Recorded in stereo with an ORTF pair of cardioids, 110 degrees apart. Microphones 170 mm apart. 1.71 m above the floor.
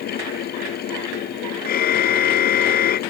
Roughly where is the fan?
Ahead left.